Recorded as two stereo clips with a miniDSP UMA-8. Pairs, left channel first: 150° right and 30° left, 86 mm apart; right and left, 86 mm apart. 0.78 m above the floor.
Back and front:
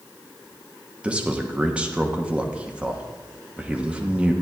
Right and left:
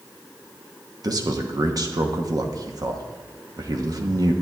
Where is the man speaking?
100° left, 1.0 m.